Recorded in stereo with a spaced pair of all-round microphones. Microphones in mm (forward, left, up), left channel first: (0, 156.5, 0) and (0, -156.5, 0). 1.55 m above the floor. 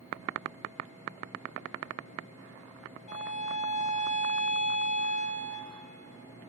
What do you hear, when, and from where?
3.1 s a violin: 70° left (ahead or behind), 3 m